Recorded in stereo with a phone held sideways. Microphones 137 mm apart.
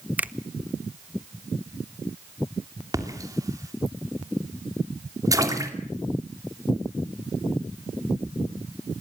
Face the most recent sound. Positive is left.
turn(degrees=-25)  # may be behind; listen again after turning